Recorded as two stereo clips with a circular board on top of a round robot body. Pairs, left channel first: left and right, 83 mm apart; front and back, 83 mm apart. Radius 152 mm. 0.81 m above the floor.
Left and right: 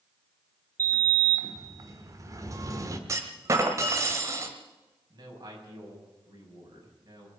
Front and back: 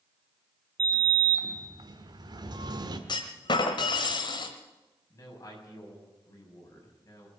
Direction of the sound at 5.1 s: 50° right.